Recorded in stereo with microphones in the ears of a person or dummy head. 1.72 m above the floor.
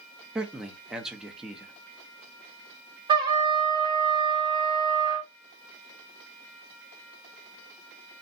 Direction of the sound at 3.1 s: 20° right (ahead or behind).